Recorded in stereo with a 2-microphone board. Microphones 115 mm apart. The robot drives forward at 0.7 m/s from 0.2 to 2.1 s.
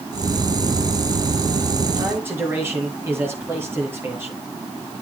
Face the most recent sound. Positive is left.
turn(degrees=-20)  # may be behind; listen again after turning